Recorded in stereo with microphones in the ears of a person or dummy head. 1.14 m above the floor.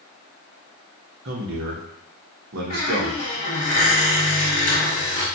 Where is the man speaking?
65° right (ahead or behind), 1.0 m.